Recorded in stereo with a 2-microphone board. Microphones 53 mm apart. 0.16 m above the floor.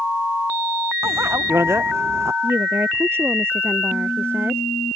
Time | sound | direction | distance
1.0 | a bicycle bell | 60° right (ahead or behind) | ?
2.4 | a woman speaking | 50° right (ahead or behind) | ?